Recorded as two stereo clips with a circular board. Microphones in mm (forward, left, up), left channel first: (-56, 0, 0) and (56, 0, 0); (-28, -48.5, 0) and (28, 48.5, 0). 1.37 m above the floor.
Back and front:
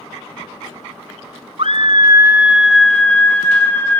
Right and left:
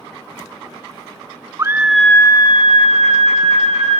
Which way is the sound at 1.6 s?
Straight ahead.